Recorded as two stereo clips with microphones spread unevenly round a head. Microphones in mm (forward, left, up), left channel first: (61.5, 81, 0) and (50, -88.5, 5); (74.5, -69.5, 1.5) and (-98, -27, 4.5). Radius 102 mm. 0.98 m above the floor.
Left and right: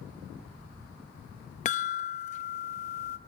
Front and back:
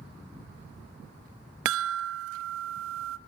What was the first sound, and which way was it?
A chime, 145° left.